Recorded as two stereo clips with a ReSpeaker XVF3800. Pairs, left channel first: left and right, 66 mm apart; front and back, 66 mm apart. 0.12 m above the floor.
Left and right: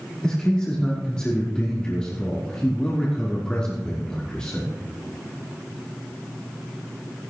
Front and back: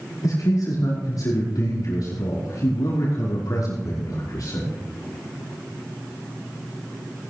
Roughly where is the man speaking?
Ahead.